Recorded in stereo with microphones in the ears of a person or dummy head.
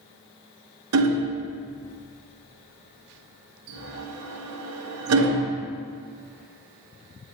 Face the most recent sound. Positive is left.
turn(degrees=-80)